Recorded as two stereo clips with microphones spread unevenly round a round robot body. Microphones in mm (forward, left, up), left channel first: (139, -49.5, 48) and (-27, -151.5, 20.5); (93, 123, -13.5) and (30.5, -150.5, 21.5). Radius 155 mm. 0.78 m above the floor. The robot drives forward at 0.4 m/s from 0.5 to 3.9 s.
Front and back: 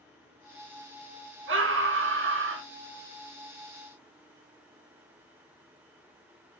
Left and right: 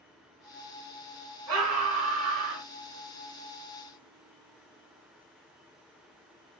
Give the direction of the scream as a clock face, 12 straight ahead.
5 o'clock.